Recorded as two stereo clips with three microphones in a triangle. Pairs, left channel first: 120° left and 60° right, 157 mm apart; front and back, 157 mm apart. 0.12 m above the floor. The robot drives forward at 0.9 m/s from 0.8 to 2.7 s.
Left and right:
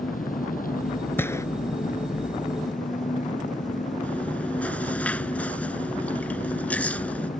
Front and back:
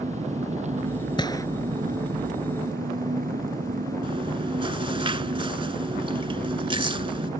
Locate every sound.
0.0 s an engine running: 140° left; by 7.4 s 155° left
1.2 s a gunshot: 50° left; by 1.5 s 60° left
4.0 s chewing: 165° right